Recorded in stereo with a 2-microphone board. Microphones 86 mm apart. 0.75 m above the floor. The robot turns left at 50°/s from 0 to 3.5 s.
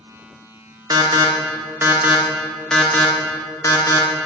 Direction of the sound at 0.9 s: 50° right (ahead or behind).